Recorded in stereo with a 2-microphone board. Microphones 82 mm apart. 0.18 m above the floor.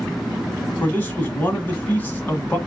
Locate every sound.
0.8 s a man speaking: 20° left (ahead or behind), 1.4 m